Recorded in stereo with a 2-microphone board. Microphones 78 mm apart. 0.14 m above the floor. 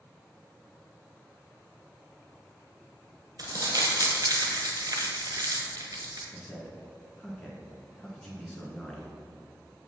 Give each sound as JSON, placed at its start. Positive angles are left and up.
{"t": 3.4, "sound": "crumpling", "side_deg": -55, "distance_m": 1.2}
{"t": 6.3, "sound": "a man speaking", "side_deg": 10, "distance_m": 1.3}